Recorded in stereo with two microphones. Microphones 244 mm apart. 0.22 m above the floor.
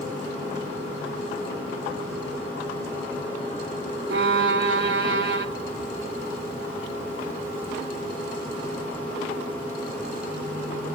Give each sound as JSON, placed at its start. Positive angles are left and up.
{"t": 4.1, "sound": "a violin", "side_deg": -50, "distance_m": 0.8}